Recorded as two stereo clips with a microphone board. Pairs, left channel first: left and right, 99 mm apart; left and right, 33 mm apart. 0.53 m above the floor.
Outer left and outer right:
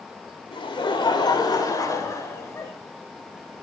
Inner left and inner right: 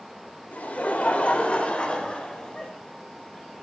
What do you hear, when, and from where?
0.5 s laughter: 55° left (ahead or behind), 2 m; by 2.7 s 25° left (ahead or behind), 3 m